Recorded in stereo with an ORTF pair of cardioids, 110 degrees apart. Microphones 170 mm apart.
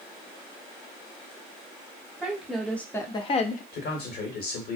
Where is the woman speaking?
5° right, 1.0 m; by 3.6 s 55° left, 0.5 m.